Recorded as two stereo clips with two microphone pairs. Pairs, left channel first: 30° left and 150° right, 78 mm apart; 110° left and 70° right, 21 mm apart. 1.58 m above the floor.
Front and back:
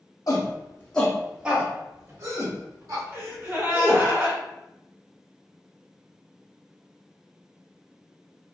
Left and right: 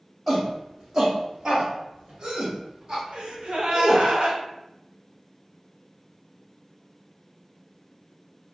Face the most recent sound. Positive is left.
turn(degrees=-90)